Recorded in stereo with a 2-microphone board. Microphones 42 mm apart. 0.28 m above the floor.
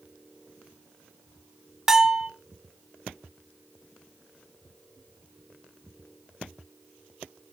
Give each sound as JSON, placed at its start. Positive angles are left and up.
{"t": 1.9, "sound": "a bell", "side_deg": -20, "distance_m": 0.6}